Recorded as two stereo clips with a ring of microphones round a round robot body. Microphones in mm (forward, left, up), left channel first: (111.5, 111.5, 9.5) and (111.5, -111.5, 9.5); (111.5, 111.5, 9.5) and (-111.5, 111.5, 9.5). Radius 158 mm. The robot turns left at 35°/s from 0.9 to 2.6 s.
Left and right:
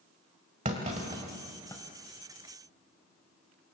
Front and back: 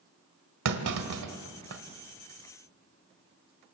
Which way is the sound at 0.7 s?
160° right.